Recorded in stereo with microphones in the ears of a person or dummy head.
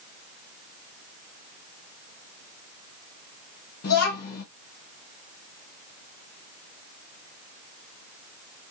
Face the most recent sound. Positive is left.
turn(degrees=55)  # may be behind; listen again after turning